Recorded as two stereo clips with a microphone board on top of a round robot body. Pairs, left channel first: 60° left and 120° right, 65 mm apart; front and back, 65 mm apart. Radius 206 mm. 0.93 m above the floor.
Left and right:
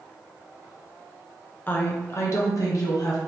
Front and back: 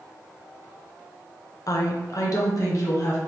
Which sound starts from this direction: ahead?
A woman speaking, at 1.7 s.